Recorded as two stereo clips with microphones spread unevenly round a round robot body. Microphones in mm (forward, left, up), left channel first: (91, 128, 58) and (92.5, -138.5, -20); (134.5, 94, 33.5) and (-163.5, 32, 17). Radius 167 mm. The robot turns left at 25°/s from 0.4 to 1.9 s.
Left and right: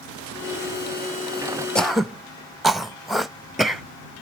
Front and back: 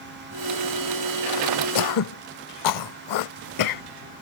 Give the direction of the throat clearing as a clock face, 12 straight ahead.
12 o'clock.